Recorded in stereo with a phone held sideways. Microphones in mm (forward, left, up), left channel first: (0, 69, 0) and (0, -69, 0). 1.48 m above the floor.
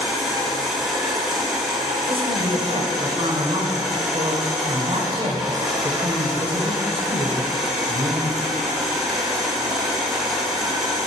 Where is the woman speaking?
40° right (ahead or behind), 1.0 m.